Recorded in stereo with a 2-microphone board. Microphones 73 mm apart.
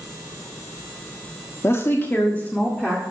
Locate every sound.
1.6 s a woman speaking: 40° left (ahead or behind), 1.3 m; by 3.0 s 10° left (ahead or behind), 2.0 m